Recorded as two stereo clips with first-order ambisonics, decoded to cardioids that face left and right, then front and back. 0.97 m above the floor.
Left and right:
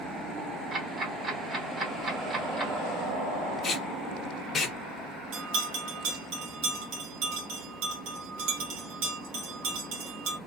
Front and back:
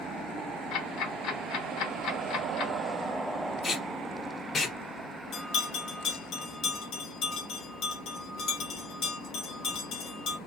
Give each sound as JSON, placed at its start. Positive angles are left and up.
{"t": 0.7, "sound": "ticking", "azimuth_deg": -20, "distance_m": 0.9}
{"t": 3.6, "sound": "tape being pulled", "azimuth_deg": 50, "distance_m": 0.8}
{"t": 5.3, "sound": "a bell", "azimuth_deg": -55, "distance_m": 0.9}